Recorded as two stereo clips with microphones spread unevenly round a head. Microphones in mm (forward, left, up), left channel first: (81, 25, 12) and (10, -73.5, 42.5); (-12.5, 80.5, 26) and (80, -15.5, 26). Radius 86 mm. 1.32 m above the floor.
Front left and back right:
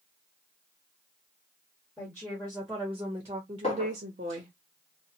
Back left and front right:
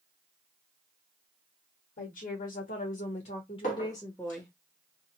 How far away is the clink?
About 1.1 m.